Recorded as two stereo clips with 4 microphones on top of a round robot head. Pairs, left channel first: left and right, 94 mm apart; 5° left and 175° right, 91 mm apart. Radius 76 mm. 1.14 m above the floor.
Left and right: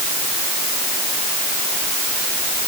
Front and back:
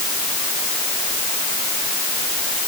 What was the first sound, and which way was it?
Only background noise.